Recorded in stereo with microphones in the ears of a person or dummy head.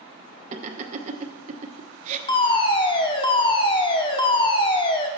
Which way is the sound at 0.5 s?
40° right (ahead or behind).